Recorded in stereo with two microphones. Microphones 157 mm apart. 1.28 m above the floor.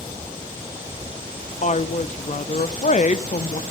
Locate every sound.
1.6 s a woman speaking: 50° left (ahead or behind), 0.5 m